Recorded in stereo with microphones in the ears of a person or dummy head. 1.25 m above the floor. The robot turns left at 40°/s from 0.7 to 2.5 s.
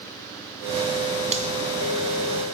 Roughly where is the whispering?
No whispering in this recording.